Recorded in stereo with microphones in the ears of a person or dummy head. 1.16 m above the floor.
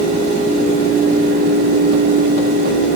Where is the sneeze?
I don't hear a sneeze.